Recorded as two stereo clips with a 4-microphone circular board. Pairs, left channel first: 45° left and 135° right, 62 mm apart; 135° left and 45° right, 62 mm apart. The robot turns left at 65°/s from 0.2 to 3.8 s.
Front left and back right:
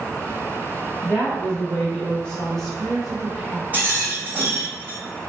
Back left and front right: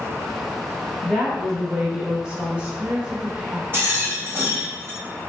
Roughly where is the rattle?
Right.